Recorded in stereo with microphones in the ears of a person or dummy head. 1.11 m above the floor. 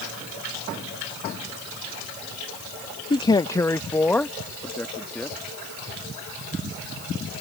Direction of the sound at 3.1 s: 25° left (ahead or behind).